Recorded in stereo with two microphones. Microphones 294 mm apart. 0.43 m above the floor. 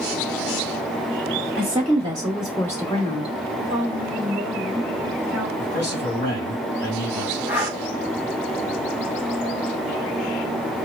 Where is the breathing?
5° right (ahead or behind), 1.4 m.